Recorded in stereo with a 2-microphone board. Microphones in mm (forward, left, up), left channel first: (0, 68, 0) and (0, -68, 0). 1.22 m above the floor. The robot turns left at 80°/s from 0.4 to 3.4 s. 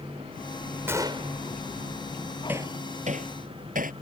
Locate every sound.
0.9 s a gunshot: 15° right; by 1.4 s 55° right
2.5 s hammering: 15° right (ahead or behind); by 3.9 s 85° right